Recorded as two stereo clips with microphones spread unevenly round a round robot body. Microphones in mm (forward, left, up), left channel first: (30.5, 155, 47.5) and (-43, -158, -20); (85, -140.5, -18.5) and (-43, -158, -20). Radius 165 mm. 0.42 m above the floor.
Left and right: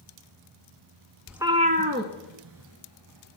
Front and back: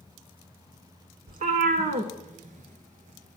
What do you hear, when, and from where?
1.3 s a cat meowing: 165° left, 0.6 m; by 3.4 s 145° right, 1.7 m